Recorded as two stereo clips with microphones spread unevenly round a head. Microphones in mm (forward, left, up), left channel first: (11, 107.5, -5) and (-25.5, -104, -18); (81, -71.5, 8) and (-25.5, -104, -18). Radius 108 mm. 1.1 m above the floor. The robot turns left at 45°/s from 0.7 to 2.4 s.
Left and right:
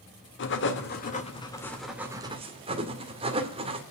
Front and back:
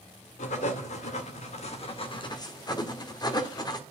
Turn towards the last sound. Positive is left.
turn(degrees=-35)